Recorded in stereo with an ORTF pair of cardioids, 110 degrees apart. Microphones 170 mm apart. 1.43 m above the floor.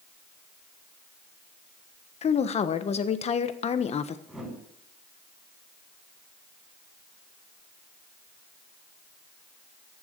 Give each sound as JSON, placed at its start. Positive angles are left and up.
{"t": 2.2, "sound": "a woman speaking", "azimuth_deg": 40, "distance_m": 1.2}
{"t": 4.3, "sound": "a whoosh", "azimuth_deg": -5, "distance_m": 7.0}